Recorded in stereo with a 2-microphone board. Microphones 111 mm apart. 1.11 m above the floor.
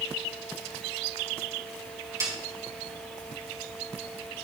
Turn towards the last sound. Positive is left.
turn(degrees=-30)  # may be behind; listen again after turning